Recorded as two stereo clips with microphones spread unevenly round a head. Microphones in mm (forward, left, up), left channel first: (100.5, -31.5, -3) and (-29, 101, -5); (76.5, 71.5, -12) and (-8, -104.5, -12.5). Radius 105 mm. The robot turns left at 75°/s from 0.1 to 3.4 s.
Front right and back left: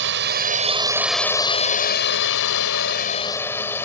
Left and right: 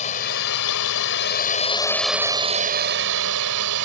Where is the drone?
120° left; by 3.9 s 125° right.